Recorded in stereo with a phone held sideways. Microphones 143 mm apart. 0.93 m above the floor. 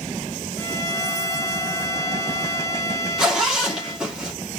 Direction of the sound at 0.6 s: 5° left (ahead or behind).